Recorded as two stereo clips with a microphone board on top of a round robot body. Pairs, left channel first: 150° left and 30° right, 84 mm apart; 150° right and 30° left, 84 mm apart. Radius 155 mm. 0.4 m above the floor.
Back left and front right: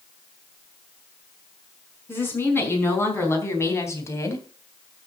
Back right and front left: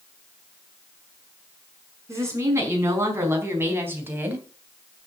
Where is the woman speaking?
90° left, 5 m; by 4.5 s 100° left, 3 m.